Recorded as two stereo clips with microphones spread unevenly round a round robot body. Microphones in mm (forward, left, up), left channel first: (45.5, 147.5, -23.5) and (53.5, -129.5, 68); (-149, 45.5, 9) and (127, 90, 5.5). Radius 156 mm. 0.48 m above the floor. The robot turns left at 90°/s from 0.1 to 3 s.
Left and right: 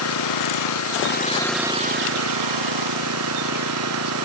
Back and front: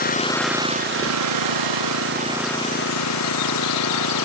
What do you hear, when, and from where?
0.0 s an engine running: 130° left; by 4.2 s 130° right